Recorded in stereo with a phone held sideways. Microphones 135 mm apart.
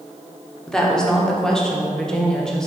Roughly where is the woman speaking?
Centre.